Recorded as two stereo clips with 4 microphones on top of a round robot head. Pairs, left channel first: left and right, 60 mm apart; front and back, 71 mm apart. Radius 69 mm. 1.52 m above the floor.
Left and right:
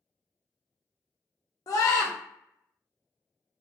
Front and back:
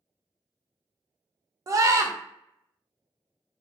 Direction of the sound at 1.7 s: 135° left.